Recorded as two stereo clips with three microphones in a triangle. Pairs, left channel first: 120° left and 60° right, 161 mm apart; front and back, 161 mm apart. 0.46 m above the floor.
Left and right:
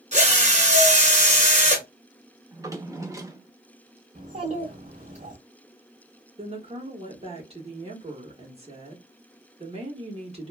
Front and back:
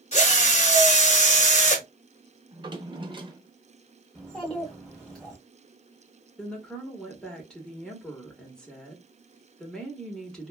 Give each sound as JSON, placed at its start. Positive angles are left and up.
{"t": 0.1, "sound": "a drill", "azimuth_deg": -30, "distance_m": 1.0}
{"t": 2.5, "sound": "a drawer", "azimuth_deg": -130, "distance_m": 0.6}
{"t": 4.2, "sound": "a child speaking", "azimuth_deg": -85, "distance_m": 0.8}
{"t": 6.4, "sound": "a woman speaking", "azimuth_deg": -85, "distance_m": 1.2}